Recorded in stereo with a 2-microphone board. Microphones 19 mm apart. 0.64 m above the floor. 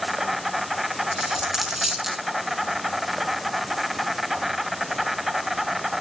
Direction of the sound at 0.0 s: 15° right (ahead or behind).